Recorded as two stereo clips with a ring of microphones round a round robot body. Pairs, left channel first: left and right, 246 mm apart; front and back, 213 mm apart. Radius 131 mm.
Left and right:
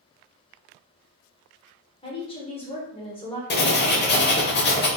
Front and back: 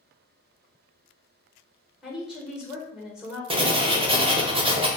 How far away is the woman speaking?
About 1.0 m.